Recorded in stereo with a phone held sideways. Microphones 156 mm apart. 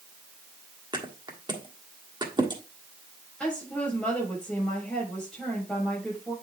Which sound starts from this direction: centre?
A woman speaking, at 3.4 s.